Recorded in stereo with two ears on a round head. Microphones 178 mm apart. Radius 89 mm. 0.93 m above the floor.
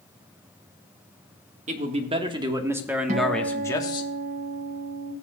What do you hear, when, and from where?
1.7 s a man speaking: 35° right (ahead or behind), 1.4 m; by 4.1 s 25° left (ahead or behind), 1.1 m
3.1 s a guitar: 35° right (ahead or behind), 1.4 m